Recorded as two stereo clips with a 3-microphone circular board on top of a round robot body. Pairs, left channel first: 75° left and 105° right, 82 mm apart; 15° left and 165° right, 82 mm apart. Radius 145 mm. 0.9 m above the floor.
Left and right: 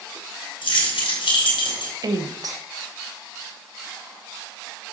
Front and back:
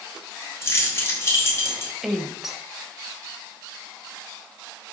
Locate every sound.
0.6 s keys jangling: 75° left, 2.5 m
2.0 s a woman speaking: 80° right, 1.3 m